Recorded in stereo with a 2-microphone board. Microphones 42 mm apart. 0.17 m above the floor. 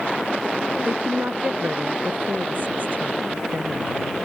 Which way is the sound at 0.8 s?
50° right (ahead or behind).